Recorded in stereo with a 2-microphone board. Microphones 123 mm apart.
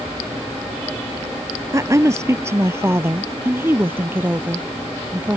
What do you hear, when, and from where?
1.7 s a woman speaking: 25° right (ahead or behind); by 5.4 s 15° right (ahead or behind)